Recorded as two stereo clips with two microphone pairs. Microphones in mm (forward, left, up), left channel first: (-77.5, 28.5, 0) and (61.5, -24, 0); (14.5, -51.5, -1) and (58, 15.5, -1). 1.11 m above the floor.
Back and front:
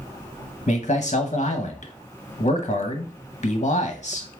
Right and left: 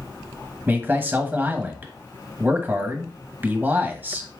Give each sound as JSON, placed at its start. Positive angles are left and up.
{"t": 0.7, "sound": "a man speaking", "azimuth_deg": 120, "distance_m": 1.0}